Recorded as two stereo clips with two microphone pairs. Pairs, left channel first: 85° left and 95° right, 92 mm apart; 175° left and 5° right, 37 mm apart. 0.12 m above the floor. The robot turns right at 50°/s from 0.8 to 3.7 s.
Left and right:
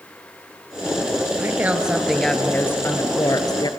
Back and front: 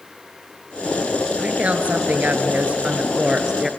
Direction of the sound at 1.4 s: 45° right.